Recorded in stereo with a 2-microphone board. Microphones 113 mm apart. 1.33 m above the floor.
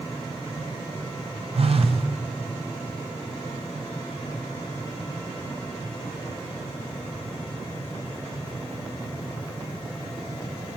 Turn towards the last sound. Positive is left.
turn(degrees=-60)  # may be behind; listen again after turning